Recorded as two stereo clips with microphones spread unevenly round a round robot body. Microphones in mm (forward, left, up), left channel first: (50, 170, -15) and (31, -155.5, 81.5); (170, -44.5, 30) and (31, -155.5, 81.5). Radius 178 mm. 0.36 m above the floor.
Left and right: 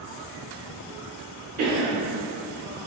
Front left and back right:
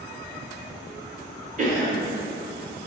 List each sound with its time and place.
1.6 s a cough: 115° right, 1.1 m